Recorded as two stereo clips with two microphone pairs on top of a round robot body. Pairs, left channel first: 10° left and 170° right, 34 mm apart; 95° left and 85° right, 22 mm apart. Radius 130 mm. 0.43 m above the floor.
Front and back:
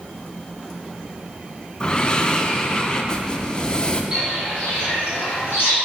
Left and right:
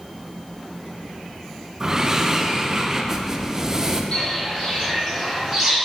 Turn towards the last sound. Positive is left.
turn(degrees=15)